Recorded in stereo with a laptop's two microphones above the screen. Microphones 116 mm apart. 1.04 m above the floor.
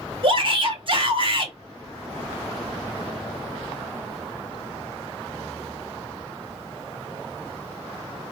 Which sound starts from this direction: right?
A shout, at 0.2 s.